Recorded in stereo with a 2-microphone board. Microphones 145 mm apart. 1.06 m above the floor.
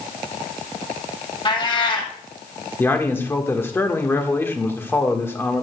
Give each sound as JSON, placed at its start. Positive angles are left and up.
{"t": 1.4, "sound": "a cat meowing", "side_deg": 35, "distance_m": 1.9}
{"t": 2.8, "sound": "a man speaking", "side_deg": 15, "distance_m": 1.4}